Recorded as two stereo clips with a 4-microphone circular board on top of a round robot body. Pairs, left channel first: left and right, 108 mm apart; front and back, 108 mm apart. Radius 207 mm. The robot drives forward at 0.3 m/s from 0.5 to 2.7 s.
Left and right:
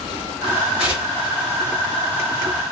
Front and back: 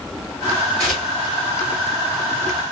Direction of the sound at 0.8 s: 70° right.